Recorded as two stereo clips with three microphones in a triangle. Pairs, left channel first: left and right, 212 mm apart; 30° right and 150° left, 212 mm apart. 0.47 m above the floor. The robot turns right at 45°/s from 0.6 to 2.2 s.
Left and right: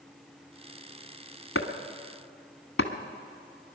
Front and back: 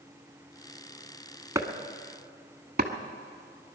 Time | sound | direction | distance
1.6 | chopping | 75° left | 1.2 m